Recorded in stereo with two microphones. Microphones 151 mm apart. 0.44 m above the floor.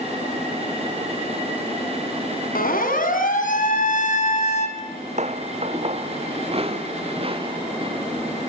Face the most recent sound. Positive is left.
turn(degrees=-35)  # may be behind; listen again after turning